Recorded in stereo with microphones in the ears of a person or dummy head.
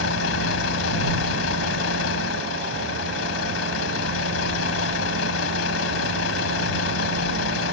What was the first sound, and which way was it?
A vehicle, 85° left.